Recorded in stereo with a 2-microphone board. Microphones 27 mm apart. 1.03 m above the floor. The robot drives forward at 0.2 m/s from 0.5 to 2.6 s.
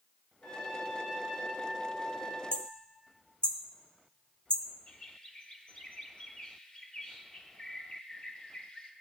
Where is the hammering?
45° left (ahead or behind), 0.9 m.